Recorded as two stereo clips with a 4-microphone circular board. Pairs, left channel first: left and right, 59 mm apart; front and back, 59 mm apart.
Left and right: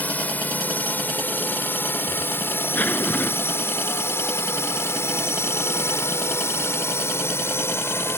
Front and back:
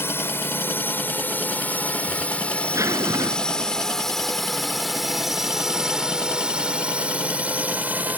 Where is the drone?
35° left; by 8.2 s 125° left.